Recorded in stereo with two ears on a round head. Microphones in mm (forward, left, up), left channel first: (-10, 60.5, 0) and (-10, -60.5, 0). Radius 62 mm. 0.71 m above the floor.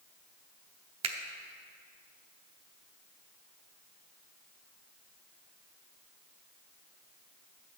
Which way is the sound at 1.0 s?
45° right (ahead or behind).